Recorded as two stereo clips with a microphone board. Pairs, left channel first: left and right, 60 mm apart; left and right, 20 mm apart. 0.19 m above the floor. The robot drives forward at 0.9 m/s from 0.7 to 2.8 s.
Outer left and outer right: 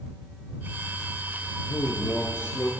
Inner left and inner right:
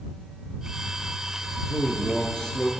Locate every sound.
1.7 s a man speaking: 55° left (ahead or behind), 2 m; by 2.7 s 40° left (ahead or behind), 2.5 m